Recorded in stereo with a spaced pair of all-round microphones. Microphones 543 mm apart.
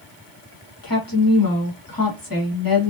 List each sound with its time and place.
0.8 s a woman speaking: 40° left (ahead or behind), 1.1 m